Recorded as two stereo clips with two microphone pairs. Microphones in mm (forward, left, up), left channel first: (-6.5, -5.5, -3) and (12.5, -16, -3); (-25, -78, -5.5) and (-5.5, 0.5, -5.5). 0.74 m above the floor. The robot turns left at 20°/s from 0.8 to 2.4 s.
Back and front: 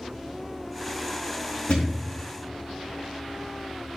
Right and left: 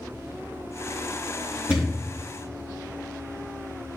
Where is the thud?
145° left, 3 m; by 2.0 s 140° left, 3 m.